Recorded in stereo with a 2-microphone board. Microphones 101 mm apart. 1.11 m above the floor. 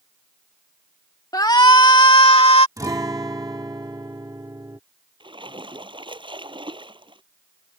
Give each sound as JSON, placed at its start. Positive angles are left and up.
{"t": 1.3, "sound": "a shout", "side_deg": 40}
{"t": 2.8, "sound": "a guitar", "side_deg": -35}
{"t": 5.2, "sound": "a splash", "side_deg": -55}